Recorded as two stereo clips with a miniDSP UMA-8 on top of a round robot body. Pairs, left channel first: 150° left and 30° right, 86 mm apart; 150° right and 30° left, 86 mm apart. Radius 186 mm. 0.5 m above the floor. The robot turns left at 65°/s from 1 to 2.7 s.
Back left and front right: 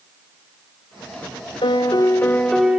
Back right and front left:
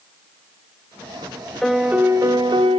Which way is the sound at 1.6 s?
125° left.